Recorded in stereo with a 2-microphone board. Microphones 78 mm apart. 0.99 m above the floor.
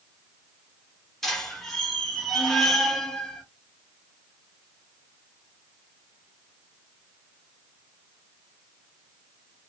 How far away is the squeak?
About 1.4 m.